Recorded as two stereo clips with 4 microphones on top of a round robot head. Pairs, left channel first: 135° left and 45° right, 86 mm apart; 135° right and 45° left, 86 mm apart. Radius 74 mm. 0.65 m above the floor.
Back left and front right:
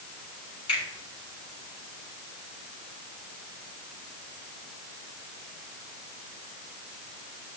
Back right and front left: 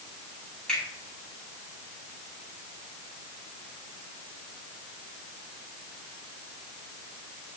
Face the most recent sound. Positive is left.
turn(degrees=140)